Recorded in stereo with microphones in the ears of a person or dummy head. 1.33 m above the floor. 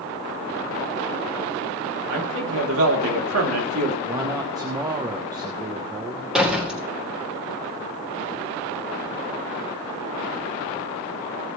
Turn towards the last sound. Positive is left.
turn(degrees=-5)  # may be behind; listen again after turning